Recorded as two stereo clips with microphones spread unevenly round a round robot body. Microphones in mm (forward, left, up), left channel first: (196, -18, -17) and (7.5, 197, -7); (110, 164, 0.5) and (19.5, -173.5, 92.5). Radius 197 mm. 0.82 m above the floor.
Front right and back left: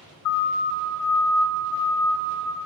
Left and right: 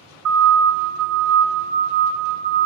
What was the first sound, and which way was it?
A siren, 70° right.